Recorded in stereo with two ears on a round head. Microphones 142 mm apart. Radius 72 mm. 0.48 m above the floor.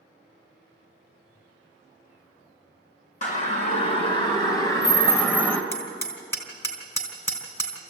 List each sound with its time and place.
3.2 s a siren: 50° left (ahead or behind), 2.5 m; by 5.6 s 10° left (ahead or behind), 3 m
5.7 s hammering: 20° left (ahead or behind), 3.5 m